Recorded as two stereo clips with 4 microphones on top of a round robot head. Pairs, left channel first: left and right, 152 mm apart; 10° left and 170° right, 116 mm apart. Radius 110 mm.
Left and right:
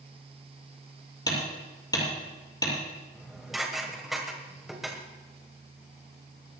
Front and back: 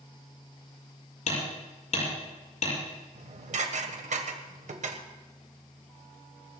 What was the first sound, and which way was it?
Hammering, 25° left.